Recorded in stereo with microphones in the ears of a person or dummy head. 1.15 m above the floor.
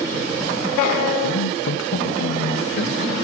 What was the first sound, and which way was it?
A man speaking, 65° left (ahead or behind).